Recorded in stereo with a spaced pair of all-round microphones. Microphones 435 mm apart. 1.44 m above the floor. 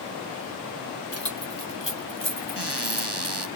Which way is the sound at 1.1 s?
30° left (ahead or behind).